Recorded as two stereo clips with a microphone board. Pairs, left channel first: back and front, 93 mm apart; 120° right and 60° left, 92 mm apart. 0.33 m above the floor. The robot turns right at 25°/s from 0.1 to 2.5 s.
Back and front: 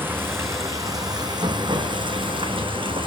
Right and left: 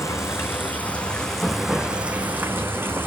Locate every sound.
0.0 s running water: 65° right, 1.7 m; by 3.1 s 5° right, 1.7 m